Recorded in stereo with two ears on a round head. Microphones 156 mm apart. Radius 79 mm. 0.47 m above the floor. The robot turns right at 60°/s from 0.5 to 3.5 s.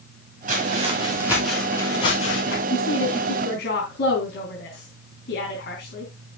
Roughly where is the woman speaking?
Left.